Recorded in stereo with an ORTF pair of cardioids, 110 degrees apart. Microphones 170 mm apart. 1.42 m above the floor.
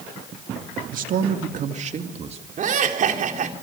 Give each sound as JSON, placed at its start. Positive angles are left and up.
{"t": 0.9, "sound": "a man speaking", "azimuth_deg": -55, "distance_m": 2.5}
{"t": 2.6, "sound": "laughter", "azimuth_deg": -50, "distance_m": 4.0}